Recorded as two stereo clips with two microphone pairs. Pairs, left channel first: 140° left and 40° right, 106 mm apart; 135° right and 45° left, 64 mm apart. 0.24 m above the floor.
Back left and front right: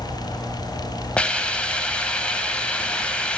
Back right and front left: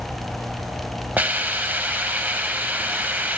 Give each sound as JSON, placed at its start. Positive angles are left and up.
{"t": 1.2, "sound": "a hiss", "azimuth_deg": 75, "distance_m": 0.6}